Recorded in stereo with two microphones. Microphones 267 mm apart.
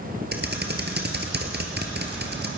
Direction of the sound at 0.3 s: 40° right (ahead or behind).